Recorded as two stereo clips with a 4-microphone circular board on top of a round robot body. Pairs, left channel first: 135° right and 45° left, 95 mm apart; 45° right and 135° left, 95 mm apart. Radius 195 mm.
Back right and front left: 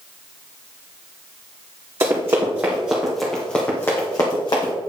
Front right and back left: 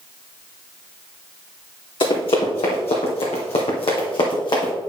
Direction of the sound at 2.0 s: 15° right.